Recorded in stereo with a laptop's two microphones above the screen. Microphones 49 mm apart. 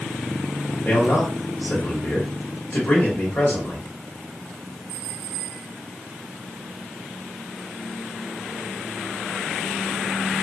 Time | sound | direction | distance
0.8 | a man speaking | 45° left (ahead or behind) | 1.6 m